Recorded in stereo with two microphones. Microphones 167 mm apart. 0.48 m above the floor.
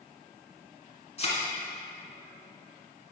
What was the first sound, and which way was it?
A thud, 40° left (ahead or behind).